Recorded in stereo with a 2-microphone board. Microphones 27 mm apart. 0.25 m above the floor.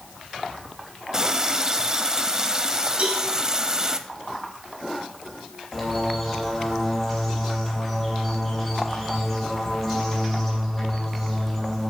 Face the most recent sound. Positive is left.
turn(degrees=5)  # may be behind; listen again after turning